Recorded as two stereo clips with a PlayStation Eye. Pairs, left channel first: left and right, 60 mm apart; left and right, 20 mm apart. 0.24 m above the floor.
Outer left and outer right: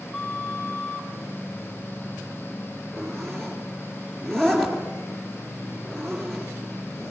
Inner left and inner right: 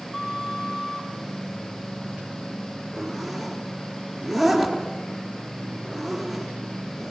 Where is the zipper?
5° left (ahead or behind), 3.5 m.